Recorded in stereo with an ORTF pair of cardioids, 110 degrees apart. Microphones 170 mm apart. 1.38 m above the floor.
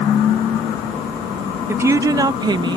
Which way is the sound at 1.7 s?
15° right.